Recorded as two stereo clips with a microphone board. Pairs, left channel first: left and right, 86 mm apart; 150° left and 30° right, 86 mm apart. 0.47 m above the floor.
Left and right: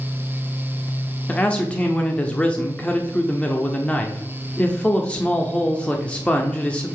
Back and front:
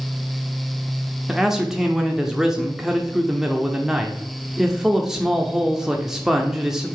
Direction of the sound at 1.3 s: 45° left.